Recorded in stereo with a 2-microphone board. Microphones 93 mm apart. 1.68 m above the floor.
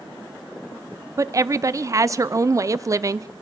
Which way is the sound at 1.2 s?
35° right (ahead or behind).